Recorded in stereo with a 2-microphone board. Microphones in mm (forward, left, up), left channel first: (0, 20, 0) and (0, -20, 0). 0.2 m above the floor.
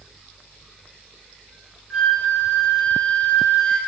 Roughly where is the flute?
Centre.